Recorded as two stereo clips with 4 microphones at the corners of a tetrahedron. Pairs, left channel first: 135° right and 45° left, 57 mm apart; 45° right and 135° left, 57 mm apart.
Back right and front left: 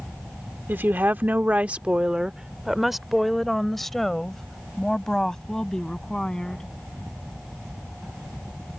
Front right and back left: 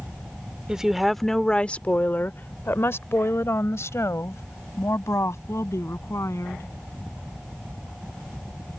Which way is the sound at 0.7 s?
65° left.